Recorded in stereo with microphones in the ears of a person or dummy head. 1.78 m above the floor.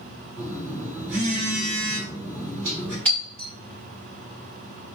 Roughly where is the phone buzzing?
Centre.